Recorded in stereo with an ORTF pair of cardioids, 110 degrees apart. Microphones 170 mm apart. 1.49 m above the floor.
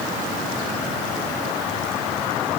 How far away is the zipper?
No zipper in this recording.